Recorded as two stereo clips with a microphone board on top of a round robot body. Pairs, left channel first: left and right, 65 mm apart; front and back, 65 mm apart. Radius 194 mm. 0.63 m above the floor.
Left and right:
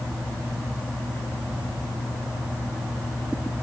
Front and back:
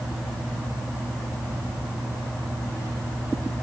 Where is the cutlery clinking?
No cutlery clinking in this recording.